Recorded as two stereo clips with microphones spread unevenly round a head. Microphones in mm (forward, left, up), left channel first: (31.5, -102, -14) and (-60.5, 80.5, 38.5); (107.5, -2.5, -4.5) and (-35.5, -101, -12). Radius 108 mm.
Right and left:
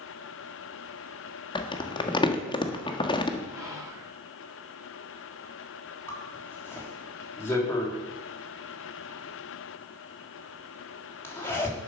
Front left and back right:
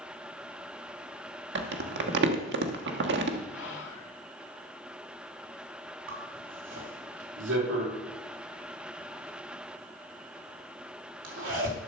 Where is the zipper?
145° right, 3 m.